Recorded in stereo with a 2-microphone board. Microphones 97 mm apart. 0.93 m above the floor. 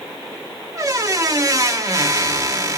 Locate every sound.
0.8 s a squeak: 35° right (ahead or behind), 0.9 m